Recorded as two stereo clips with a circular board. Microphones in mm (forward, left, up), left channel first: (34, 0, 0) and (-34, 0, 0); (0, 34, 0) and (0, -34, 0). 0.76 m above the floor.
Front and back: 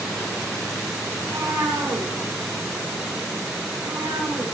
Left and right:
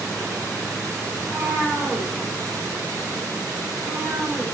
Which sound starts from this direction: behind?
A cat meowing, at 1.2 s.